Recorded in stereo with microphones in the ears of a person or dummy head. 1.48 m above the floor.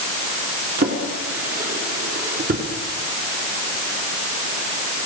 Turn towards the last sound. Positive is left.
turn(degrees=-50)  # may be behind; listen again after turning